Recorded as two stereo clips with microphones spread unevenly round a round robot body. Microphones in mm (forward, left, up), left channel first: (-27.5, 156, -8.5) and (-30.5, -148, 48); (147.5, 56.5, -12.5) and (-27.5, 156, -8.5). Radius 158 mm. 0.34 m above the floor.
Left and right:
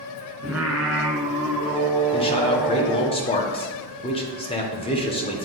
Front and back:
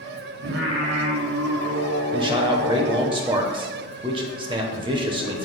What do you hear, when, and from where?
0.4 s singing: 175° right, 1.2 m
2.1 s a man speaking: 110° left, 0.9 m